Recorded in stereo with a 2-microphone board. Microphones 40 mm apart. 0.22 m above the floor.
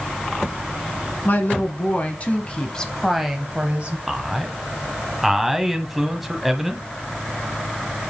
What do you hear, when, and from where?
1.2 s a woman speaking: 55° left (ahead or behind), 1.9 m; by 4.0 s 35° right (ahead or behind), 1.1 m
4.1 s a man speaking: 5° right (ahead or behind), 1.1 m